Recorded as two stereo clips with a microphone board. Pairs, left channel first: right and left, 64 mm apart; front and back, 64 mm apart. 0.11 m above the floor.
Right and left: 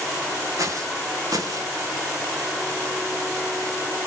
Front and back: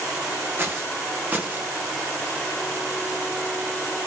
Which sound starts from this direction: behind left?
Footsteps, at 0.6 s.